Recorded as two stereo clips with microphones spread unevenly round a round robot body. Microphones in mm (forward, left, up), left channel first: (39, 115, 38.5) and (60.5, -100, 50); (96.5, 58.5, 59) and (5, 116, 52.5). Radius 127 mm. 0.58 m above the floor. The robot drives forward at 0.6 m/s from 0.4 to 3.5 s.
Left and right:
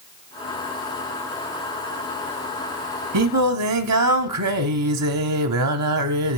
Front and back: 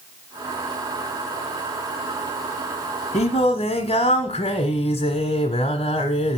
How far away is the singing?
About 0.8 m.